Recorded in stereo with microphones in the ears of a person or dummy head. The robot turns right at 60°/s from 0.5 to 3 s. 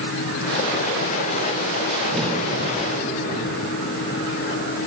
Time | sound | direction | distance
2.1 | a crack | 5° right (ahead or behind) | 1.3 m